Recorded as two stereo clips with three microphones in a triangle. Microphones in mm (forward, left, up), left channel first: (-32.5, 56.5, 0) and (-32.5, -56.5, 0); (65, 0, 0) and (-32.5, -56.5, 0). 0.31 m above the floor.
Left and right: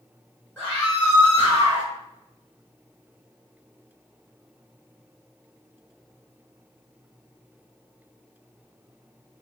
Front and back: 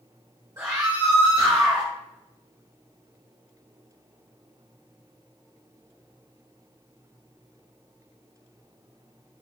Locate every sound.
0.6 s a scream: 165° left, 1.4 m; by 1.9 s 125° right, 1.3 m